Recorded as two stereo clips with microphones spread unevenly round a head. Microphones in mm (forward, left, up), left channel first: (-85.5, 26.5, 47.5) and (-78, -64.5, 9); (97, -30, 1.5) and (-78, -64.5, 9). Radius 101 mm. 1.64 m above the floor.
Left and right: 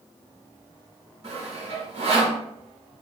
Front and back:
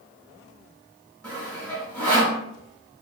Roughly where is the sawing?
Right.